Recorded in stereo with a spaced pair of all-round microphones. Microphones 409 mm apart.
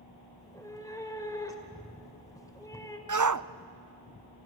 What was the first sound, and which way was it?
A cat meowing, 10° left (ahead or behind).